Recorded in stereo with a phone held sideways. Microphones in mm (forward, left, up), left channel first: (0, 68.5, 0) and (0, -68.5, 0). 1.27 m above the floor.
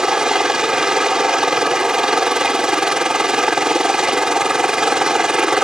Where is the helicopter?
5° right (ahead or behind).